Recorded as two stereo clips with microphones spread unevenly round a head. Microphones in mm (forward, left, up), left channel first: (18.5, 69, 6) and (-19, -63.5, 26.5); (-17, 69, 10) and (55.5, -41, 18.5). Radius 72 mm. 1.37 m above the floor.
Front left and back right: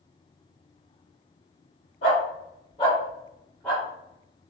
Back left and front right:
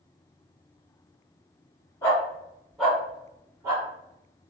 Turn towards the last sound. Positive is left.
turn(degrees=-25)